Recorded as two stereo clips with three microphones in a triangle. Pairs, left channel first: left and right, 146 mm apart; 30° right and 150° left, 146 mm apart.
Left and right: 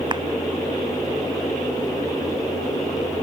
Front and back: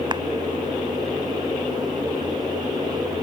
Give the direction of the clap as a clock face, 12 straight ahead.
5 o'clock.